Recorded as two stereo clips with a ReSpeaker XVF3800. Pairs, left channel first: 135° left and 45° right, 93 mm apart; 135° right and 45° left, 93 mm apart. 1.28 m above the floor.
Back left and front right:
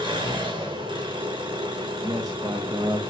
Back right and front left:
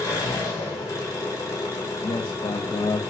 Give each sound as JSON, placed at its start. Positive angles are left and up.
{"t": 0.0, "sound": "an engine running", "azimuth_deg": -80, "distance_m": 4.5}
{"t": 2.0, "sound": "a man speaking", "azimuth_deg": -95, "distance_m": 1.2}